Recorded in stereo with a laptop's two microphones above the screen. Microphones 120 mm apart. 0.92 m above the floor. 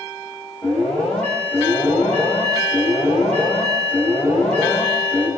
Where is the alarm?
10° left (ahead or behind), 8.5 m.